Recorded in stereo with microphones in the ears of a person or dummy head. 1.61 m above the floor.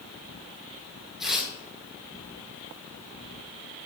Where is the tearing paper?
Centre (ahead or behind), 2.5 m.